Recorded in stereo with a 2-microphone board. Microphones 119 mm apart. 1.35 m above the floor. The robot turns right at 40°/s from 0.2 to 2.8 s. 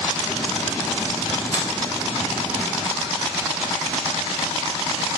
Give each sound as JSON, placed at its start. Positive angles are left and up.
{"t": 1.5, "sound": "a finger snap", "side_deg": 40, "distance_m": 1.4}